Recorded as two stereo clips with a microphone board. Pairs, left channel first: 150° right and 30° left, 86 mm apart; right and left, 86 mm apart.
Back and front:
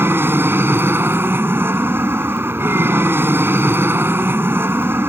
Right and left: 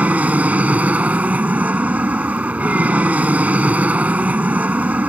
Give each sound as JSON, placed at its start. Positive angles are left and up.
{"t": 0.0, "sound": "an aircraft", "azimuth_deg": 40}